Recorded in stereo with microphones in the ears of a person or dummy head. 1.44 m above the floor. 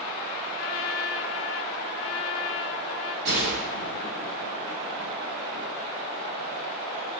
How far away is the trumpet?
About 1.3 m.